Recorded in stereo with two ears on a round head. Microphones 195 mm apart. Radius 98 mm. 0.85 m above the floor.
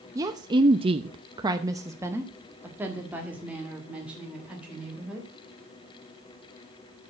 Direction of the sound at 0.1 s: 15° right (ahead or behind).